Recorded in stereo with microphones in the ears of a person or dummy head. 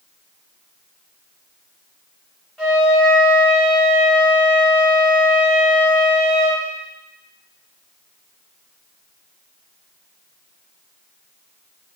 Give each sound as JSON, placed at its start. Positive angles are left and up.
{"t": 2.6, "sound": "a flute", "side_deg": 0, "distance_m": 2.0}